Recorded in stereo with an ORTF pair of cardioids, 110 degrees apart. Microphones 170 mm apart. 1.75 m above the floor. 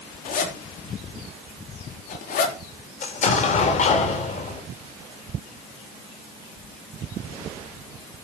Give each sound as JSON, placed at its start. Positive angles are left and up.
{"t": 0.2, "sound": "a zipper", "azimuth_deg": 55, "distance_m": 4.5}
{"t": 3.0, "sound": "an explosion", "azimuth_deg": 45, "distance_m": 4.5}